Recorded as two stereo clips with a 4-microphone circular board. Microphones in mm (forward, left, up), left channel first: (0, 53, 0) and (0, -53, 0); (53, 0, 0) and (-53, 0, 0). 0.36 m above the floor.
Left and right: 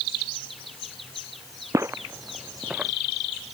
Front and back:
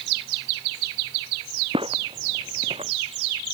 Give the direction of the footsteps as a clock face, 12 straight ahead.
5 o'clock.